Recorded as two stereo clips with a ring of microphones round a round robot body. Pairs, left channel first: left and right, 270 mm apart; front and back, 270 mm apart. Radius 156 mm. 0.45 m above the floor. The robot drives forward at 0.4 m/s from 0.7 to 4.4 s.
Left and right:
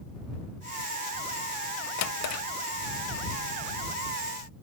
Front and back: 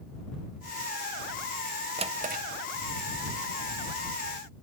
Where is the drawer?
110° left, 0.7 m; by 2.4 s 125° left, 0.8 m.